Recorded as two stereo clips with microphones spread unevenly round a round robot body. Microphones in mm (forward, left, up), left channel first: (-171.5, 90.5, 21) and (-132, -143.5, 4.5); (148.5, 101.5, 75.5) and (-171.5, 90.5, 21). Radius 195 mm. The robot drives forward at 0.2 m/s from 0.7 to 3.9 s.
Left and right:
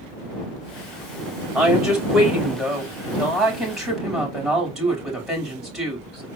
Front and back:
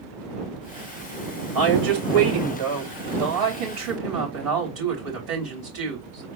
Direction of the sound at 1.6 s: 165° right.